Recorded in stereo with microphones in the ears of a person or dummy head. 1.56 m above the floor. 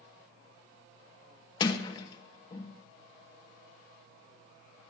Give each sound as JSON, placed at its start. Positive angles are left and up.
{"t": 1.6, "sound": "a sliding door", "side_deg": 25, "distance_m": 1.7}